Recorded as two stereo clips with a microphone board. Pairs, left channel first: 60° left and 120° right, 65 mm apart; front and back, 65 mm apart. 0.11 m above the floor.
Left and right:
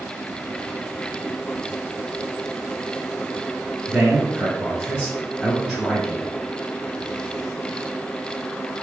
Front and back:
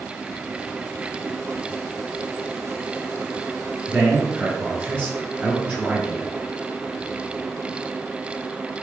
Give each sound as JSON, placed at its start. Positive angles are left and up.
{"t": 3.9, "sound": "a man speaking", "azimuth_deg": 175, "distance_m": 1.5}